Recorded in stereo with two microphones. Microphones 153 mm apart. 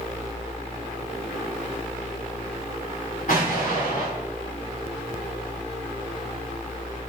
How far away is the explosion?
About 4 m.